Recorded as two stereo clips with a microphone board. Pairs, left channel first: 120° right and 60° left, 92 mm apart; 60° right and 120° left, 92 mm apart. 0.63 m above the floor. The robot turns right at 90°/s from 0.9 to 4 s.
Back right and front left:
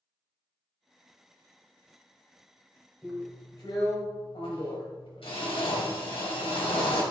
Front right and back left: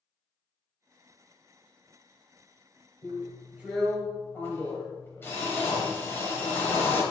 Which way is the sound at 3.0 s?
145° left.